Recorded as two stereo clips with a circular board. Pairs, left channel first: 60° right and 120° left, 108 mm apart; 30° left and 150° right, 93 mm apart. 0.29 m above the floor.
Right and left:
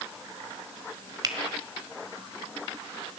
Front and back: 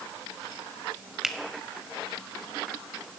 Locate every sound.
1.2 s a finger snap: 125° left, 1.2 m